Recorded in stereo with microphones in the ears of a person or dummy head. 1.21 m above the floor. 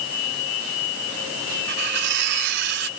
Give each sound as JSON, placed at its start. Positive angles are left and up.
{"t": 1.7, "sound": "cutlery clinking", "side_deg": -55}